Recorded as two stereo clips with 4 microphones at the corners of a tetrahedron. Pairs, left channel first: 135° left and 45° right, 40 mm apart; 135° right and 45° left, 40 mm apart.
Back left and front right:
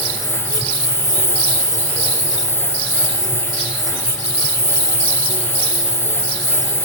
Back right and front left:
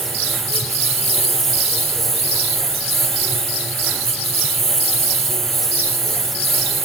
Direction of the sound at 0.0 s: 140° left.